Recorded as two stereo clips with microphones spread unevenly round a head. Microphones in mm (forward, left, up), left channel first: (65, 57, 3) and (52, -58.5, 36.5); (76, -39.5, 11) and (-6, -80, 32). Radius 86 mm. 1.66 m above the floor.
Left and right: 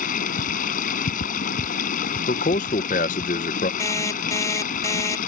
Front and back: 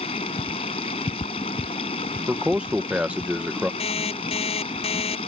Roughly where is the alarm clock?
Ahead.